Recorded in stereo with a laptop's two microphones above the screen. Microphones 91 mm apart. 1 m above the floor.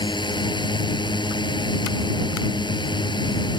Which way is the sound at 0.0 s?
55° left (ahead or behind).